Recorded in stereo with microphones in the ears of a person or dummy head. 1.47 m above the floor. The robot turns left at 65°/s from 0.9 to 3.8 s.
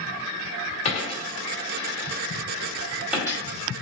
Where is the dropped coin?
35° left (ahead or behind), 1.6 m; by 3.4 s 20° right (ahead or behind), 1.6 m.